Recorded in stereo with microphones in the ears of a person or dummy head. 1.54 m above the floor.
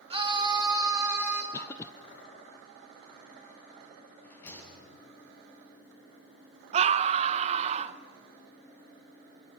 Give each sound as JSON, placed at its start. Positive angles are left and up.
{"t": 0.1, "sound": "a scream", "side_deg": -25, "distance_m": 2.0}
{"t": 1.5, "sound": "a cough", "side_deg": 10, "distance_m": 0.6}
{"t": 4.2, "sound": "a rattle", "side_deg": 10, "distance_m": 7.0}
{"t": 6.7, "sound": "a scream", "side_deg": -40, "distance_m": 1.0}